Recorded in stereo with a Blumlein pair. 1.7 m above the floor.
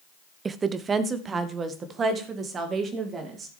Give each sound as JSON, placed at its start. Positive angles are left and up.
{"t": 0.5, "sound": "a woman speaking", "azimuth_deg": -15, "distance_m": 0.6}